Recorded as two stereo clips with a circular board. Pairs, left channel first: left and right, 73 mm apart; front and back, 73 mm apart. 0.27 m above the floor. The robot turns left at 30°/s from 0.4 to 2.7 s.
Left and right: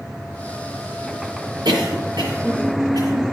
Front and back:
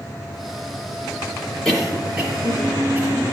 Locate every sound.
1.6 s a cough: 80° right, 6.5 m; by 3.2 s 110° right, 6.5 m